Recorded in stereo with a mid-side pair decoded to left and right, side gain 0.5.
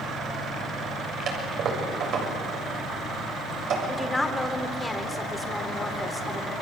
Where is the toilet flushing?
65° right, 7.5 m.